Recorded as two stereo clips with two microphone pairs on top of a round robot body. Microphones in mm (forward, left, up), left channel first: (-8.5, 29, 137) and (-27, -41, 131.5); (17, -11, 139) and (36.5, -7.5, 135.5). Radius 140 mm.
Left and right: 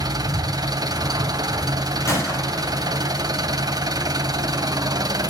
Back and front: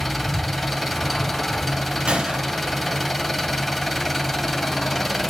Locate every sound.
0.0 s an engine running: 85° right, 2.5 m
2.1 s a gunshot: 25° left, 6 m